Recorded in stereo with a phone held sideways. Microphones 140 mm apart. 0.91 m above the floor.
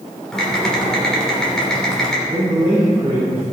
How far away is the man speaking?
About 3 m.